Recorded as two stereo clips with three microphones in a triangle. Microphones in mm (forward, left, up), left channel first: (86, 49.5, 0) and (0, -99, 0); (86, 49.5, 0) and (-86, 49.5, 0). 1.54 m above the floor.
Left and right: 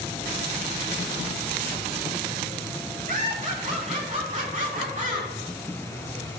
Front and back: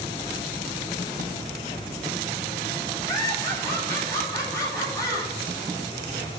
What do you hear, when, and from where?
3.1 s laughter: 70° right, 3 m